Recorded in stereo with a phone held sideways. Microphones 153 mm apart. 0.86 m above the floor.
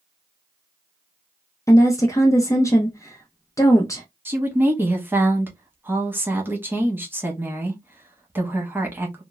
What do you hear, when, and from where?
1.7 s a woman speaking: 20° left (ahead or behind), 0.5 m
4.2 s a woman speaking: 15° right (ahead or behind), 0.9 m